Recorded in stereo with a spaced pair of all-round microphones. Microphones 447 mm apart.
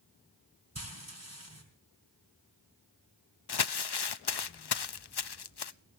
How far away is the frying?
About 3.5 m.